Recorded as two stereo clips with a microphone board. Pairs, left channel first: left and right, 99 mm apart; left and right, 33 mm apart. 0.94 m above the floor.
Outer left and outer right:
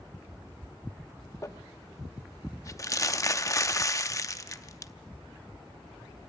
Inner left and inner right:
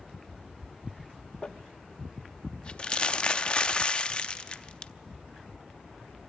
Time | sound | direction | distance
1.4 | crumpling | 35° left (ahead or behind) | 0.6 m